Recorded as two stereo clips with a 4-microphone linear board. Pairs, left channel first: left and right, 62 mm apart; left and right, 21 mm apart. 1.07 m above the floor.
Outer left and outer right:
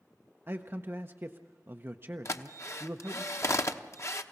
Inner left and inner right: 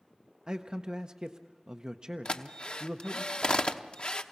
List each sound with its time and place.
0.5 s a man speaking: 40° right (ahead or behind), 0.7 m
2.2 s a drill: 50° left (ahead or behind), 0.9 m